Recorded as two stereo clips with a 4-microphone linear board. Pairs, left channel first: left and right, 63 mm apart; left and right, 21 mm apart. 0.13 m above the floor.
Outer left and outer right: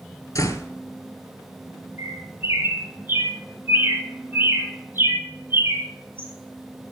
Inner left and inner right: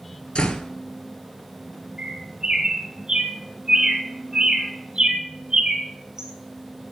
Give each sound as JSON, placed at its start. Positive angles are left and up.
{"t": 0.3, "sound": "a door slam", "side_deg": 60, "distance_m": 1.4}
{"t": 2.0, "sound": "a bird", "side_deg": -35, "distance_m": 1.3}